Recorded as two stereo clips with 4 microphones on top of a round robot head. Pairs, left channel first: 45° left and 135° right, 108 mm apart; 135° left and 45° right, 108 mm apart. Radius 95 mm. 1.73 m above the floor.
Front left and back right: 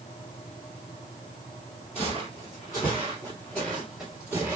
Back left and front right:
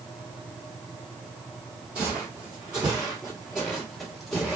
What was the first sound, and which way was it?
Footsteps, 20° left.